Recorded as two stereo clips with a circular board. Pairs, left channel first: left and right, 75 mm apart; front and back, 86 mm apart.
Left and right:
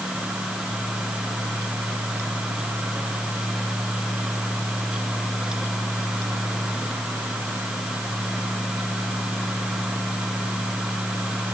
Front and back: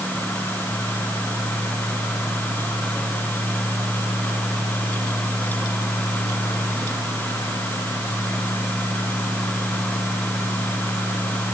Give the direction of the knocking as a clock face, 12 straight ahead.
No knocking in this recording.